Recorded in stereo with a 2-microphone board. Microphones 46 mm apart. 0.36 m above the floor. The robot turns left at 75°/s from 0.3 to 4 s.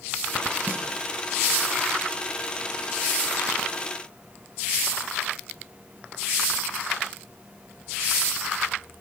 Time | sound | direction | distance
0.7 | a snare drum | 45° right (ahead or behind) | 3 m